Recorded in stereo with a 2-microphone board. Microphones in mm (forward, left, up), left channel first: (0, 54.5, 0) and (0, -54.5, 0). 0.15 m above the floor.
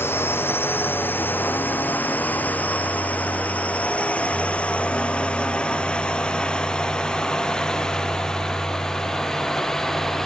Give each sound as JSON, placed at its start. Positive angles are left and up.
{"t": 0.0, "sound": "a drone", "side_deg": 20}